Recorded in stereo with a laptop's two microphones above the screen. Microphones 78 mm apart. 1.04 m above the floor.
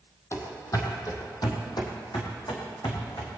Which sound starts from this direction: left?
Running footsteps, at 0.3 s.